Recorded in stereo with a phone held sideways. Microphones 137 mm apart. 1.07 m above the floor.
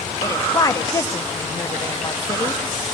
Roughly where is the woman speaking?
Left.